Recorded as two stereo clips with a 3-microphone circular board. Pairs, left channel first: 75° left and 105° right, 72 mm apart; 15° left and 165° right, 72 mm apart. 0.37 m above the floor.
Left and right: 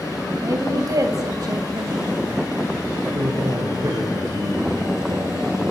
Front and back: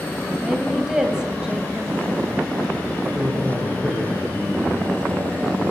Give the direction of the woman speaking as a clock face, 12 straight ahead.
3 o'clock.